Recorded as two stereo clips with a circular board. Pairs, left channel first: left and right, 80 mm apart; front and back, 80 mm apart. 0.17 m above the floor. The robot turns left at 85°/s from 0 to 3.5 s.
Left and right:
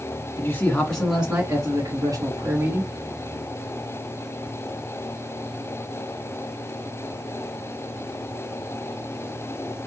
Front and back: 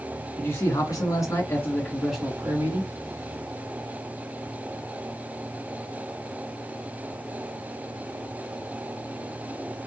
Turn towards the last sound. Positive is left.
turn(degrees=150)